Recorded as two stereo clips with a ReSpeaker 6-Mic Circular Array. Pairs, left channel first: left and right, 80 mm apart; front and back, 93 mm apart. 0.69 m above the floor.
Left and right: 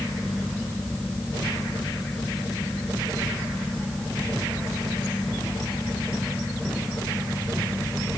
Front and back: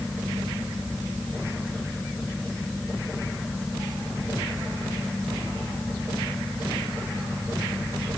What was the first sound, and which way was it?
Only background noise.